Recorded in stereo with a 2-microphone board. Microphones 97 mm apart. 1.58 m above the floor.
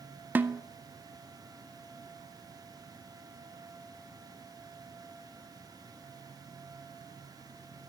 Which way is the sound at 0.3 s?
20° right (ahead or behind).